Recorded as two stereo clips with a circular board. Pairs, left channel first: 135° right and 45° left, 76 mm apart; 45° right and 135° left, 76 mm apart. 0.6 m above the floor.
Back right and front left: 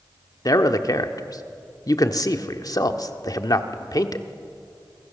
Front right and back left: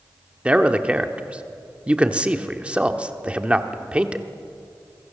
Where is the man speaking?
155° right, 1.2 m.